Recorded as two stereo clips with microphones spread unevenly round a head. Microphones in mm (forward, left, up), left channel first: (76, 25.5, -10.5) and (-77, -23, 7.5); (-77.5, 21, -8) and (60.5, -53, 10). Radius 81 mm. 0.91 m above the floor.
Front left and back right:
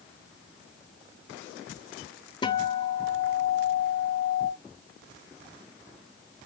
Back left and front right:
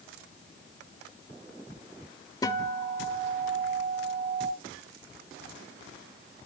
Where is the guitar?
80° left, 0.9 m.